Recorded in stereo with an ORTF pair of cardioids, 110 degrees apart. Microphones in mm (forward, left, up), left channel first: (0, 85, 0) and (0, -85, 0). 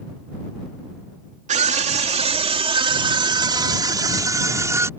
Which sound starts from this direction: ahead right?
A scream, at 1.5 s.